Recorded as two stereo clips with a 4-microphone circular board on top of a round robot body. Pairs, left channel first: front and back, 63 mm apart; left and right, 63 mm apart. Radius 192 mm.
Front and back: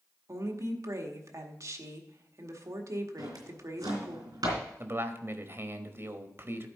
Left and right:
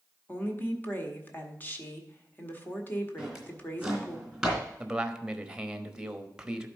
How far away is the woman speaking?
About 1.8 m.